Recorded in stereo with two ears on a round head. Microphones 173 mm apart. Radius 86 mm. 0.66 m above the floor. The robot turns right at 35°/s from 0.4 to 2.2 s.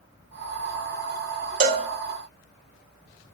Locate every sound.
1.6 s a cowbell: 50° right (ahead or behind), 1.5 m; by 1.9 s 55° right (ahead or behind), 1.5 m